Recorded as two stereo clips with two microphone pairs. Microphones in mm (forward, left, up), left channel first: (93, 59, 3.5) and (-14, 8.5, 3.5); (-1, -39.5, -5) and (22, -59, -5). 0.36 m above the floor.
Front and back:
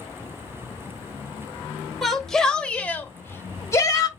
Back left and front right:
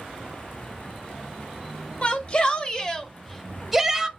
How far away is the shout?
About 1.5 m.